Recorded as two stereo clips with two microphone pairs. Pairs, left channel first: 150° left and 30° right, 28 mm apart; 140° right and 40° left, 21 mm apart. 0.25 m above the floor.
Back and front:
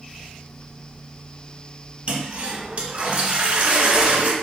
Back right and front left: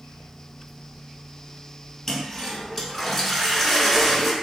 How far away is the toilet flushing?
About 0.6 m.